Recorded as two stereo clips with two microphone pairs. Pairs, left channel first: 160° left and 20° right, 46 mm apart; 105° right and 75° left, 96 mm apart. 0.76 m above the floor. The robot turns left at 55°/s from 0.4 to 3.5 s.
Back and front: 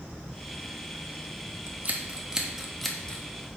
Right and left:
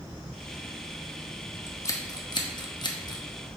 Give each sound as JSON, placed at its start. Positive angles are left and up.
{"t": 1.7, "sound": "scissors", "azimuth_deg": -55, "distance_m": 0.9}